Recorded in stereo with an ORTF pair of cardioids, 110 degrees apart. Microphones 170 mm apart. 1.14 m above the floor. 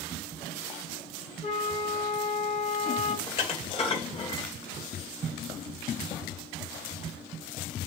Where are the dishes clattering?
35° left, 2.5 m.